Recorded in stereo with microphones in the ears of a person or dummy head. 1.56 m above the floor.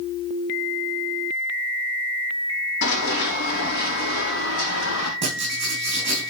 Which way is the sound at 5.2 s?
35° right (ahead or behind).